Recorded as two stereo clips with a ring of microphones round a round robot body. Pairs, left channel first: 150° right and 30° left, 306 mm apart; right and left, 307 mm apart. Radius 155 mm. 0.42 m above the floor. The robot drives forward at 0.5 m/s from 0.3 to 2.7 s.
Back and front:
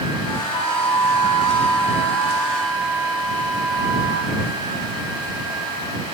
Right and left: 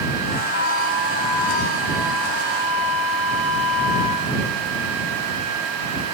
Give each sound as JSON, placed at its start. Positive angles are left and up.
{"t": 0.5, "sound": "a flute", "azimuth_deg": 135, "distance_m": 5.5}